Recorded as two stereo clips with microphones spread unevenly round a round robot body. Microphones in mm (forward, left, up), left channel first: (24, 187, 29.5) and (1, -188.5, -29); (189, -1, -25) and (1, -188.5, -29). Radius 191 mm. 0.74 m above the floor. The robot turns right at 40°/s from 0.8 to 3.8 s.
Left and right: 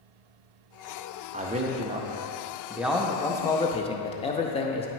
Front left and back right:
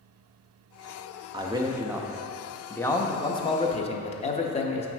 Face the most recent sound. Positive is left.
turn(degrees=10)